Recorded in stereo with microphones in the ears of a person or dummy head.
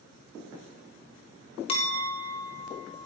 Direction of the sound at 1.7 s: 30° left (ahead or behind).